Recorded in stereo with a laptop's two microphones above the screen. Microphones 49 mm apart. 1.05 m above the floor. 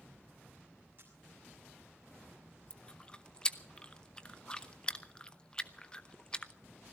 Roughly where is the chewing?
Centre.